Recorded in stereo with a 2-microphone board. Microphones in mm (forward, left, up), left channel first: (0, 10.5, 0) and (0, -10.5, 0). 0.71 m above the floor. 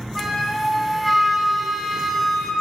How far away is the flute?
About 1.0 m.